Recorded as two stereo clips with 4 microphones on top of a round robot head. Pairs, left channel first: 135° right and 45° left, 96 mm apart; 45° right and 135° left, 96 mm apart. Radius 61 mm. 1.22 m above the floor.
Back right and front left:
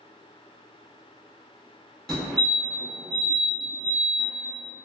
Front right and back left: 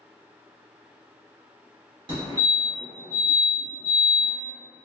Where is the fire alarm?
145° left, 1.8 m.